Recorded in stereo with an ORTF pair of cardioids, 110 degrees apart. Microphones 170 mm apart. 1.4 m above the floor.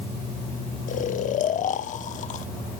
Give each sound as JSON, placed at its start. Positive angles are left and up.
{"t": 0.9, "sound": "snoring", "azimuth_deg": 50, "distance_m": 1.1}